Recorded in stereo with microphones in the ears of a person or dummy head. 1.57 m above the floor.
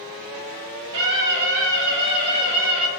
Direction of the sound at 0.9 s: 70° right (ahead or behind).